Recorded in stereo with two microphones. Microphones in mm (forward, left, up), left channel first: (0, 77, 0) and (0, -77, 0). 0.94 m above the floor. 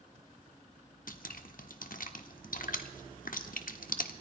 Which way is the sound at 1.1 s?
70° left (ahead or behind).